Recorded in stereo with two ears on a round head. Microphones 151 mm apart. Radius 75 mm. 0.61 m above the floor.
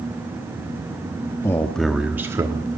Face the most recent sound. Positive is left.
turn(degrees=-25)  # may be behind; listen again after turning